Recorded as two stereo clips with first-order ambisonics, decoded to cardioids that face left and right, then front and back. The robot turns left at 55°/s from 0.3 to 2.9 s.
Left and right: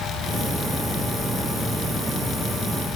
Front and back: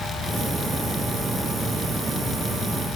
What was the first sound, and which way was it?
Only background noise.